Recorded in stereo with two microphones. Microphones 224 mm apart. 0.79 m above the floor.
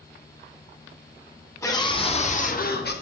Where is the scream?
15° left (ahead or behind), 2.5 m; by 2.9 s 55° left (ahead or behind), 3 m.